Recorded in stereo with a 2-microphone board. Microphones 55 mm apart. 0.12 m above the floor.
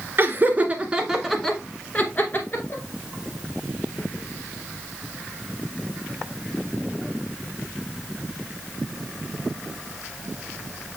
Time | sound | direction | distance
0.2 | laughter | 40° right (ahead or behind) | 1.5 m